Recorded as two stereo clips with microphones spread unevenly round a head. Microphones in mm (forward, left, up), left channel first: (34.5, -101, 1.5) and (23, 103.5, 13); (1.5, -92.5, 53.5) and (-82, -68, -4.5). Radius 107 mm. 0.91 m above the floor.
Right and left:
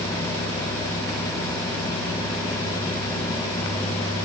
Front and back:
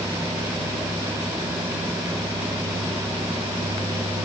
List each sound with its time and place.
Only background noise.